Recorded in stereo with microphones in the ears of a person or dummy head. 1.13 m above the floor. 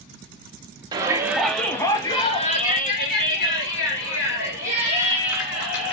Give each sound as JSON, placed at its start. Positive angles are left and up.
{"t": 0.9, "sound": "a shout", "side_deg": -20, "distance_m": 1.0}